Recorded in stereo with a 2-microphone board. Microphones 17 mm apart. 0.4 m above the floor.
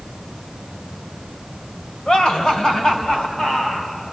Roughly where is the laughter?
Left.